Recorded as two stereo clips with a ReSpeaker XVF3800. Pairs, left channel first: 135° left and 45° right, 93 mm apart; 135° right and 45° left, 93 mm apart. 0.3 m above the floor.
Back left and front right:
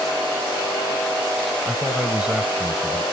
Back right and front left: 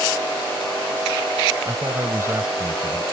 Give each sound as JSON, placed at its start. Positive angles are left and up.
{"t": 1.6, "sound": "a man speaking", "azimuth_deg": 30}